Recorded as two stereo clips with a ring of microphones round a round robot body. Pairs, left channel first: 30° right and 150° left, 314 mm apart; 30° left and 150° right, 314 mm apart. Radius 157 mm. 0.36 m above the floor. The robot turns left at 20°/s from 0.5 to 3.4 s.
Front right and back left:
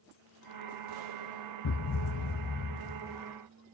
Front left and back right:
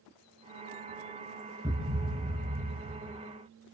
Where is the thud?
70° right, 2 m; by 3.2 s 100° right, 2 m.